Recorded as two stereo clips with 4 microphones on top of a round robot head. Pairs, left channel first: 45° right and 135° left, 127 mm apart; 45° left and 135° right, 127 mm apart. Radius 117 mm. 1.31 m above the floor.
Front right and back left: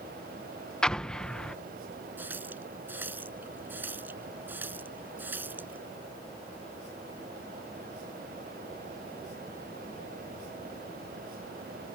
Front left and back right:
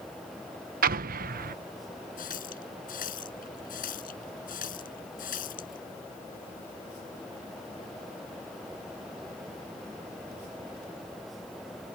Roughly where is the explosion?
Behind right.